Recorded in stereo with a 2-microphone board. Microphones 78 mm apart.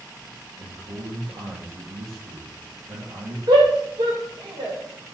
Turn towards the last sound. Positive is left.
turn(degrees=-80)